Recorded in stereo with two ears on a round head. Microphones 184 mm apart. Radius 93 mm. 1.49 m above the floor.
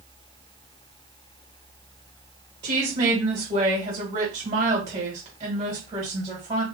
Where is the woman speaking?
20° right (ahead or behind), 1.9 m.